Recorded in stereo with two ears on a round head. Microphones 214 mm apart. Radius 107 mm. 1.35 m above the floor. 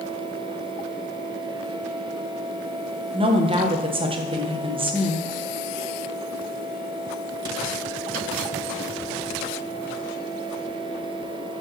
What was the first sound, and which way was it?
A woman speaking, 25° right (ahead or behind).